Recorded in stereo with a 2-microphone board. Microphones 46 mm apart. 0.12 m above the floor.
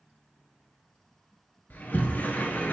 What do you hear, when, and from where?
1.7 s a sliding door: 40° left (ahead or behind), 1.1 m